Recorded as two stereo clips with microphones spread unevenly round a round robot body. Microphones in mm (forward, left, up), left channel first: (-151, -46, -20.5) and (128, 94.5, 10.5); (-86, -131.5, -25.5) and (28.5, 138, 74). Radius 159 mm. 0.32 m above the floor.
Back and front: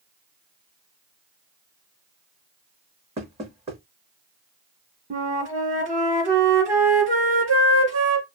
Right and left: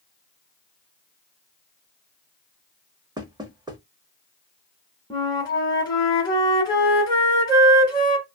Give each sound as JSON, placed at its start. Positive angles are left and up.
{"t": 3.2, "sound": "knocking", "azimuth_deg": -35, "distance_m": 0.7}
{"t": 5.1, "sound": "a flute", "azimuth_deg": -45, "distance_m": 0.9}